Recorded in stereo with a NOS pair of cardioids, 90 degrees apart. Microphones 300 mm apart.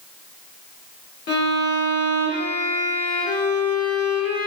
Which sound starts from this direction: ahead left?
A violin, at 1.3 s.